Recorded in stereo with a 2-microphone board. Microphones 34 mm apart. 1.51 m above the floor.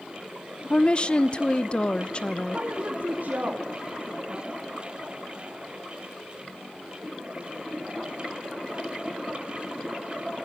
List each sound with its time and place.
0.7 s a woman speaking: 30° left (ahead or behind), 0.9 m
2.5 s a woman speaking: 50° right (ahead or behind), 4 m